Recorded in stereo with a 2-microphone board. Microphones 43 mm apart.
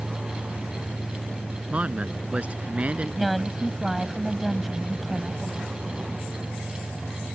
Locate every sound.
1.7 s a man speaking: 30° right (ahead or behind); by 3.6 s 35° right (ahead or behind)
3.2 s a woman speaking: 5° right (ahead or behind)